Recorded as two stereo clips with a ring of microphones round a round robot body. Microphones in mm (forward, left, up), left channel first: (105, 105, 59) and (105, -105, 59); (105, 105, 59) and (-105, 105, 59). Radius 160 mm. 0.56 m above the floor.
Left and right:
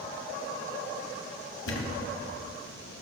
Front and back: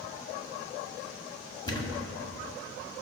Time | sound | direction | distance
1.7 | a thud | 70° left | 1.6 m